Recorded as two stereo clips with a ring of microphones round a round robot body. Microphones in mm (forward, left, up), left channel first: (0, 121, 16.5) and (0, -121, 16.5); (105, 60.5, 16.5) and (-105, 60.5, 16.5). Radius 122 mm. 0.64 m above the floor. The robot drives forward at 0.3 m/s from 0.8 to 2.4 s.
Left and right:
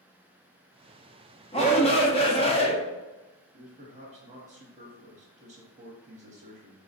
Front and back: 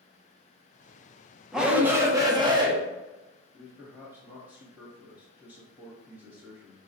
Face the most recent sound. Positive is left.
turn(degrees=-105)